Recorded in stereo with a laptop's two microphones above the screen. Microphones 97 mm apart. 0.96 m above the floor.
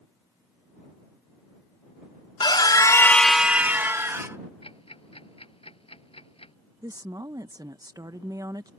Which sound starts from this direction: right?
A woman speaking, at 6.8 s.